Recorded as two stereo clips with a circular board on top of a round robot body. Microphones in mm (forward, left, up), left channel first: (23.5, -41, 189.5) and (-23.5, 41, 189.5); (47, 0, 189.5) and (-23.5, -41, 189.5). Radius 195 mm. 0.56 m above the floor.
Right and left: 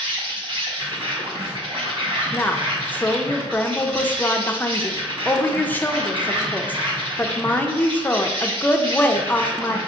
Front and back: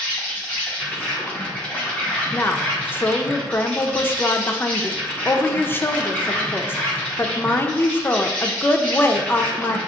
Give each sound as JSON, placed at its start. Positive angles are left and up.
{"t": 0.0, "sound": "an insect", "azimuth_deg": 105, "distance_m": 1.7}
{"t": 2.3, "sound": "a woman speaking", "azimuth_deg": -10, "distance_m": 0.8}